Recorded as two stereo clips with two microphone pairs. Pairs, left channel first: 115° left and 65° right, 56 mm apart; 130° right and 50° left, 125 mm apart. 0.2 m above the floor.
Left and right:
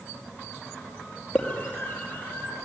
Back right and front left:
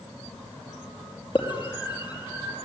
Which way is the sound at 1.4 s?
175° right.